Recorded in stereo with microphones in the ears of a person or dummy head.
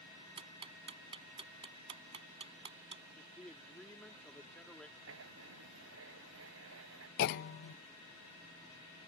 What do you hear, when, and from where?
0.4 s ticking: 40° right (ahead or behind)
3.2 s a man speaking: centre (ahead or behind)
5.0 s writing: 85° right
7.2 s a clunk: 55° left (ahead or behind)